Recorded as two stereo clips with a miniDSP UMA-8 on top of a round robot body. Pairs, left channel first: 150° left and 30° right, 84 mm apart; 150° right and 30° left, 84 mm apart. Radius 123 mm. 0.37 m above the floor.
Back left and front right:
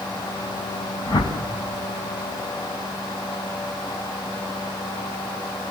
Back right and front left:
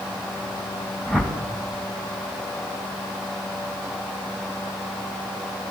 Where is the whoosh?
115° left, 2.5 m.